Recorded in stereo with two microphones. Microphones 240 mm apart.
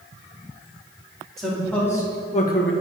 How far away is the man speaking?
About 2 m.